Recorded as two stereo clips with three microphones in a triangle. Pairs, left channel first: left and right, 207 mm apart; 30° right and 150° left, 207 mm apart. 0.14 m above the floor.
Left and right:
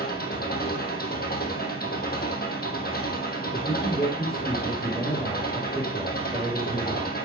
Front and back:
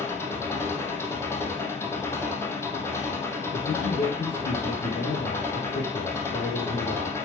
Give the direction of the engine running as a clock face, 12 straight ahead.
10 o'clock.